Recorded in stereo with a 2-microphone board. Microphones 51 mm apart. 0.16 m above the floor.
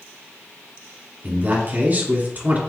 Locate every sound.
1.2 s a man speaking: 35° right (ahead or behind), 2.0 m